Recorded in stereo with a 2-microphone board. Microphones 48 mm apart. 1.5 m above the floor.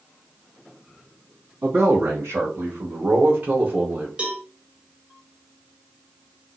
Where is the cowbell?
20° right (ahead or behind), 1.1 m.